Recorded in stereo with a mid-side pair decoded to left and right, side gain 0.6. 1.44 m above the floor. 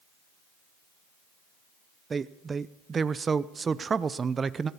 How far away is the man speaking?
About 0.6 m.